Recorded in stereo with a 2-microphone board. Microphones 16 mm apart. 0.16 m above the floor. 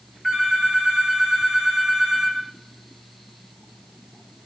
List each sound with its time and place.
0.2 s a phone ringing: 25° right (ahead or behind), 8 m